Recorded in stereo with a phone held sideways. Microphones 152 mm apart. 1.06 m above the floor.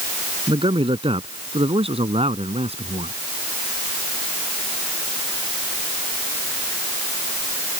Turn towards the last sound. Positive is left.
turn(degrees=-45)  # may be behind; listen again after turning